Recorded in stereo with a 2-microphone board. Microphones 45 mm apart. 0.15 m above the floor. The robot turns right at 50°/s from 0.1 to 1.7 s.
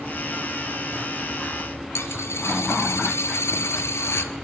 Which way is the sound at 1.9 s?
85° left.